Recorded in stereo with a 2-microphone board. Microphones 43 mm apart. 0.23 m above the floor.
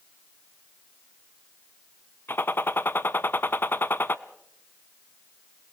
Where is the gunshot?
55° left (ahead or behind), 0.8 m.